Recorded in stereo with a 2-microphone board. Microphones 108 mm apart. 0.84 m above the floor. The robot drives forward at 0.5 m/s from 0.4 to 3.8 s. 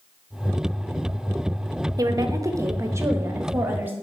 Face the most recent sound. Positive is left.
turn(degrees=-20)  # may be behind; listen again after turning